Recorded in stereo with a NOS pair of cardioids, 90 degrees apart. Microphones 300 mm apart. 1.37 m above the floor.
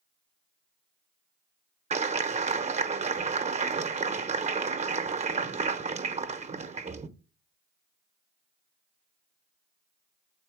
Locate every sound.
1.9 s a clap: 25° right, 0.8 m